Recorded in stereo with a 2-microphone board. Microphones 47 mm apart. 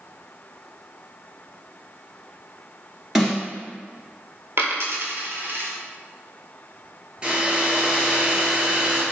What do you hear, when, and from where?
3.1 s a snare drum: 5° right (ahead or behind), 1.9 m
4.6 s a dropped coin: 65° right (ahead or behind), 1.1 m
7.2 s a hair dryer: 20° right (ahead or behind), 1.4 m